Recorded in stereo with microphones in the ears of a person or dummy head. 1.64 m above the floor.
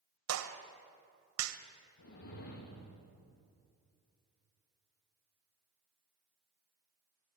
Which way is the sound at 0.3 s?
80° right.